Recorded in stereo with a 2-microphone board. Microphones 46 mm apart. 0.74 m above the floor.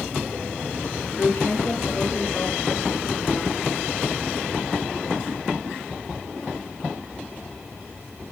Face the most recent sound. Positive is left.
turn(degrees=85)